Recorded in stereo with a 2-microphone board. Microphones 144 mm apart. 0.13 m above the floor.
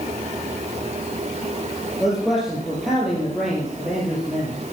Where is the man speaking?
Centre (ahead or behind), 3.5 m.